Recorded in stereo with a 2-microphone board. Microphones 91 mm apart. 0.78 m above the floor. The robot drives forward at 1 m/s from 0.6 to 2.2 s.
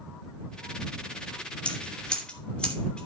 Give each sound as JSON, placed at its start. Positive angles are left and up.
{"t": 1.6, "sound": "scissors", "side_deg": 15, "distance_m": 2.5}